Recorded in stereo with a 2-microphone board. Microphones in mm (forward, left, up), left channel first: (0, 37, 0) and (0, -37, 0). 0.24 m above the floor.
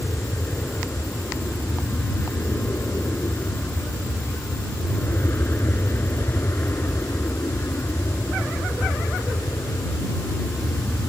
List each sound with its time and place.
0.0 s an aircraft: 30° left (ahead or behind)